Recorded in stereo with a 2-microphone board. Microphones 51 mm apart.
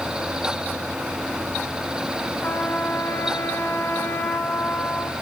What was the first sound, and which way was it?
A trumpet, 45° left (ahead or behind).